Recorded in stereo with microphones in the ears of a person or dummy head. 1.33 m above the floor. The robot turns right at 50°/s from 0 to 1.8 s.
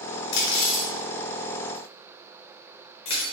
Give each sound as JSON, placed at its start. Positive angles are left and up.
{"t": 0.3, "sound": "cutlery clinking", "side_deg": 70, "distance_m": 1.1}